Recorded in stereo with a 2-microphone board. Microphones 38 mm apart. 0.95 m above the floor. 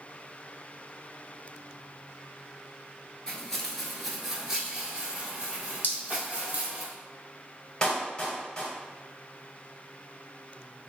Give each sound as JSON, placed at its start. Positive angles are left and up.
{"t": 3.3, "sound": "footsteps", "side_deg": 15, "distance_m": 0.9}
{"t": 5.8, "sound": "dripping", "side_deg": 55, "distance_m": 0.8}
{"t": 7.8, "sound": "a clap", "side_deg": 20, "distance_m": 1.2}